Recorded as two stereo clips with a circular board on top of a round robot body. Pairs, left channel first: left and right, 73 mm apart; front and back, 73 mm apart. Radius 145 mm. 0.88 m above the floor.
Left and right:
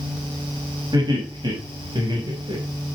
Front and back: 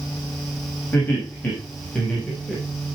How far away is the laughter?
About 6.5 m.